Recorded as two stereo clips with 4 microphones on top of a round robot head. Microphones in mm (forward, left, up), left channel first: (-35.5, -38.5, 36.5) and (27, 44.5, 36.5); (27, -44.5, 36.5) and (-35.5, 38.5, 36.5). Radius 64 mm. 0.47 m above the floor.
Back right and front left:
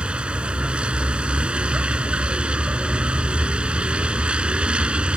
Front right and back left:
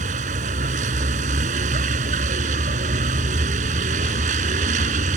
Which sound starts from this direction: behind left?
A vehicle, at 0.0 s.